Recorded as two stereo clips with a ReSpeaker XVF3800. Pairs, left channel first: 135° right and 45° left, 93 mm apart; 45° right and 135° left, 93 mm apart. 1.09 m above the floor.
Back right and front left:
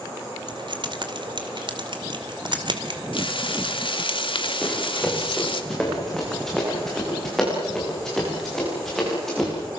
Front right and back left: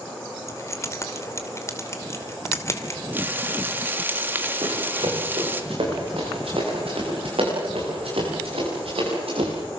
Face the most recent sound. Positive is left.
turn(degrees=140)